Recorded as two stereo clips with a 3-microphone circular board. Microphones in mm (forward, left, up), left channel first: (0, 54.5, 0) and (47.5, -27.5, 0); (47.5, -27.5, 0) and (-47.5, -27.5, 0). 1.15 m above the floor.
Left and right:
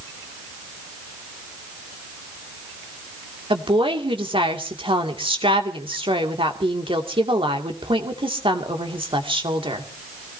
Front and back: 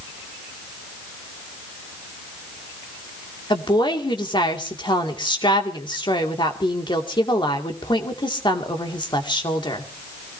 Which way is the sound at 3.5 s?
35° right.